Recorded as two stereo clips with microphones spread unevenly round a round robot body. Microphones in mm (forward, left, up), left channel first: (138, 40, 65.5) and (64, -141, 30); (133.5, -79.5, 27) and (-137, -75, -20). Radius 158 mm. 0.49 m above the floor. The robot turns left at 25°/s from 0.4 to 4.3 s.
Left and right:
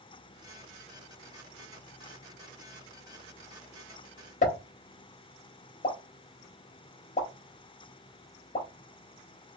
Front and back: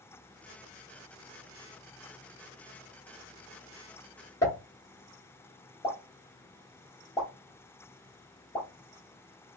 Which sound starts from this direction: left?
A pop, at 4.4 s.